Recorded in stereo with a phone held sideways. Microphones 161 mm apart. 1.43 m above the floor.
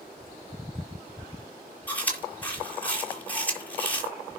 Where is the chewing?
10° left (ahead or behind), 6.5 m.